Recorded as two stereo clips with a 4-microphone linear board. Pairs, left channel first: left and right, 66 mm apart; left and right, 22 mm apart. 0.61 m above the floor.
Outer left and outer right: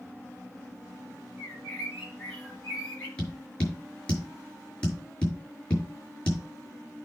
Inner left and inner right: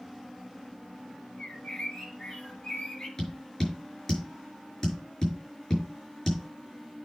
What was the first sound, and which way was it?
A bird, 20° left (ahead or behind).